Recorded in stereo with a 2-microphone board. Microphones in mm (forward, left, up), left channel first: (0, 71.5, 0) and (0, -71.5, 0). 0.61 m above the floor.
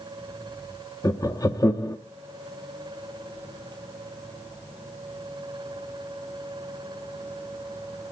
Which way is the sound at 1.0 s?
25° left (ahead or behind).